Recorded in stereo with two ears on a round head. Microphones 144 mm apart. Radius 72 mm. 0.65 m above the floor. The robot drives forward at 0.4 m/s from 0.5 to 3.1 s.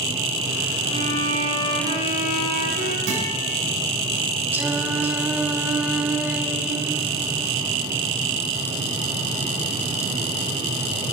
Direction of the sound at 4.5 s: 10° right (ahead or behind).